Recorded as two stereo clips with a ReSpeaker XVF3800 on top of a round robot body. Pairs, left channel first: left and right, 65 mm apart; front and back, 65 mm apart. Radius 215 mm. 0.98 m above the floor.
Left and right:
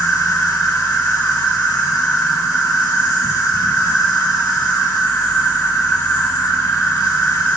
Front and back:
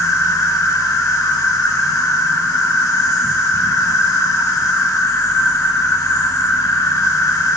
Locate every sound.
0.0 s an insect: 50° left, 1.7 m